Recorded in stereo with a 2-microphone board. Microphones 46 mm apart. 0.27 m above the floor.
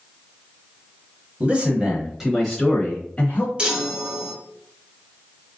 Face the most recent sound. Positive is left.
turn(degrees=-25)  # may be behind; listen again after turning